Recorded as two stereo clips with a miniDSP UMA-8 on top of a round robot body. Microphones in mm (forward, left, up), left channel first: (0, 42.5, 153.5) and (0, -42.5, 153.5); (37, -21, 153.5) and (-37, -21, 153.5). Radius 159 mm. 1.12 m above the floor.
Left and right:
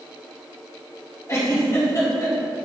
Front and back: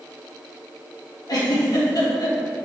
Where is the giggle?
35° left, 2.5 m.